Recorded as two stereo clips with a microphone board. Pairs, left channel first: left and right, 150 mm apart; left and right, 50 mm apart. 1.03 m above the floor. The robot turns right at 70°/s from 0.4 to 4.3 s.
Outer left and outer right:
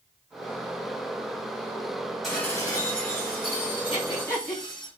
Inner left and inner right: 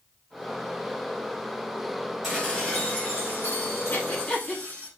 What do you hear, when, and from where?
2.2 s dishes clattering: 5° right, 4 m; by 4.9 s 140° left, 4 m
3.9 s breathing: 45° left (ahead or behind), 2.5 m; by 4.6 s 20° left (ahead or behind), 2.5 m